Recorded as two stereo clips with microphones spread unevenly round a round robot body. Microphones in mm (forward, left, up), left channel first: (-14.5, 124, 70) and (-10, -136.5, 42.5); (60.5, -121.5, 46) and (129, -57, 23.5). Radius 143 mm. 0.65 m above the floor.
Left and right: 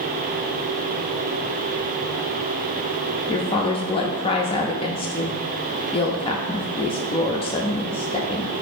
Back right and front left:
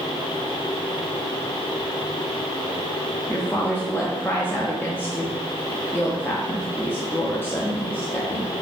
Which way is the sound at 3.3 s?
150° left.